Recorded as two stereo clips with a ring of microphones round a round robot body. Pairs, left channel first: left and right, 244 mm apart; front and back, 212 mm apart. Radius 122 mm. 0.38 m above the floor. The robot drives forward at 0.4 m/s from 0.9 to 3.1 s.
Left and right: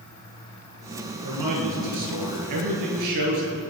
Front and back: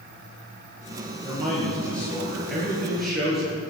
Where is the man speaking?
85° right, 5.5 m; by 3.6 s 90° right, 5.5 m.